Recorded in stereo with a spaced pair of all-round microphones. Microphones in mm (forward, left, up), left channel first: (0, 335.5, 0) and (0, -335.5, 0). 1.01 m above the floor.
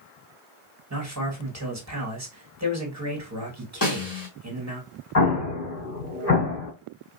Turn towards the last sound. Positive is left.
turn(degrees=60)  # may be behind; listen again after turning